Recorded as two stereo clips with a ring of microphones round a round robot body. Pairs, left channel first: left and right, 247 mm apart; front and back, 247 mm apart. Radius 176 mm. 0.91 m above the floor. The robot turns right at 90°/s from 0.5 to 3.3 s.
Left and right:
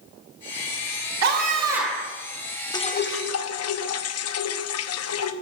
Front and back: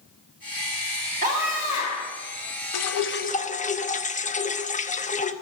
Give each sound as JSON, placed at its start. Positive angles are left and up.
{"t": 1.2, "sound": "a scream", "azimuth_deg": -115, "distance_m": 1.7}
{"t": 2.7, "sound": "dripping", "azimuth_deg": 15, "distance_m": 0.9}